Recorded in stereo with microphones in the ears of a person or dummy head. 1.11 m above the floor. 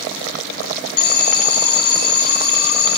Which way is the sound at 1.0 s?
65° left (ahead or behind).